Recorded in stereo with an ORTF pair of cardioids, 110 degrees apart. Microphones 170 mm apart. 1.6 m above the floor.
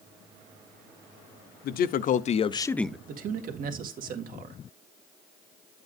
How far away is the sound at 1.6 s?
About 0.9 m.